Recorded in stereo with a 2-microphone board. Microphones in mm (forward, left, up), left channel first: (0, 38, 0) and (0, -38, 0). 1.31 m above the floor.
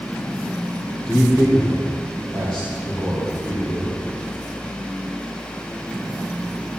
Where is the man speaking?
10° left (ahead or behind), 3.5 m.